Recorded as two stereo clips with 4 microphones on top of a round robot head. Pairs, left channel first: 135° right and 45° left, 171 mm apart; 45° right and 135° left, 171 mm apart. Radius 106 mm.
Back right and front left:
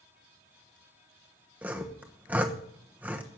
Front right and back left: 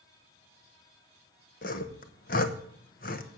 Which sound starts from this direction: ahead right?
Sawing, at 1.6 s.